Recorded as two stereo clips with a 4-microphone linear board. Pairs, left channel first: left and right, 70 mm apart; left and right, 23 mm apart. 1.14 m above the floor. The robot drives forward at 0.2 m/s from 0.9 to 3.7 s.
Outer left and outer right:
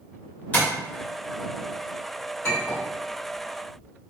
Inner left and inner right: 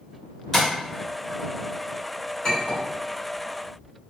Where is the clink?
35° left (ahead or behind), 1.7 m.